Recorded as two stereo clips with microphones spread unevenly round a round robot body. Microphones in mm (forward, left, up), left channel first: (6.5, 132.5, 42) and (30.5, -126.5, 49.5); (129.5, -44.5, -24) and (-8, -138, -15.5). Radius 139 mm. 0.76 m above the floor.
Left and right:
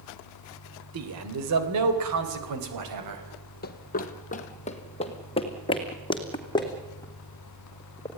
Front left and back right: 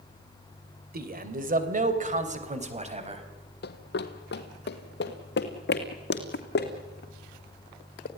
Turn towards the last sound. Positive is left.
turn(degrees=20)